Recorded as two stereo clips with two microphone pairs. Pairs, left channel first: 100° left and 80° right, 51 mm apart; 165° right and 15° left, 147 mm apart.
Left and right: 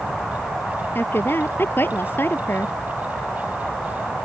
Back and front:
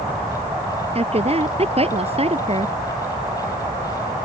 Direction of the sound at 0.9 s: 60° left.